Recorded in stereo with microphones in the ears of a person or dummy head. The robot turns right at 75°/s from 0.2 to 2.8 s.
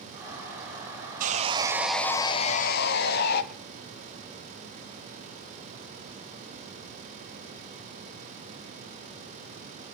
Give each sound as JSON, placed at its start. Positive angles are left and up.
{"t": 1.2, "sound": "sawing", "azimuth_deg": -55, "distance_m": 1.5}